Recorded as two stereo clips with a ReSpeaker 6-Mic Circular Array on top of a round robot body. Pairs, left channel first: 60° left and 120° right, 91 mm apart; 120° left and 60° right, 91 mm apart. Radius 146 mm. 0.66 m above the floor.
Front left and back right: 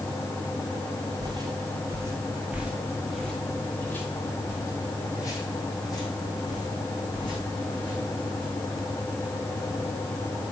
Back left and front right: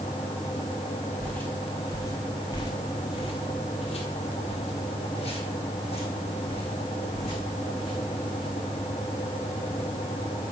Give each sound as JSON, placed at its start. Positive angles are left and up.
{"t": 1.2, "sound": "footsteps", "azimuth_deg": -160, "distance_m": 1.5}